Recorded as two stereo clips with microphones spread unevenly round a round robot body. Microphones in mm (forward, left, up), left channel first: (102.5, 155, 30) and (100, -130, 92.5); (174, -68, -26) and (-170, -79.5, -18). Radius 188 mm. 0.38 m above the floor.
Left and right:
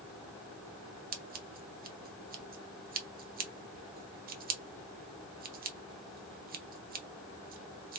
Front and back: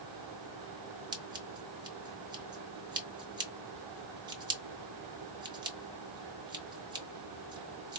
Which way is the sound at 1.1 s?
120° right.